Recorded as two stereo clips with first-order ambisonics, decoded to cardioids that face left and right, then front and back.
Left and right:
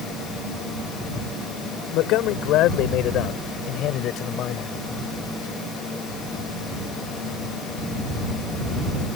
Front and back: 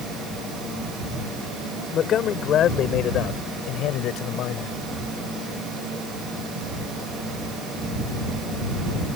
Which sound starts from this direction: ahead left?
A man speaking, at 1.9 s.